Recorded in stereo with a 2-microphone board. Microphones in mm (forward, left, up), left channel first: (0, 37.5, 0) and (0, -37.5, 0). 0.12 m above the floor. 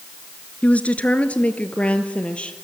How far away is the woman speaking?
About 1.4 m.